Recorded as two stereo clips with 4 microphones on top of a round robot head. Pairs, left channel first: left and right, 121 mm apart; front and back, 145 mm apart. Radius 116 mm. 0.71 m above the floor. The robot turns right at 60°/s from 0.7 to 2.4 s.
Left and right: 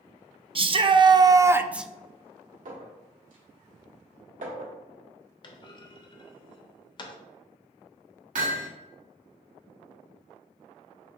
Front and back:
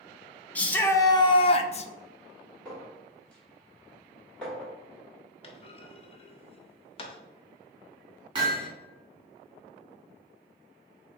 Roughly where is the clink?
Right.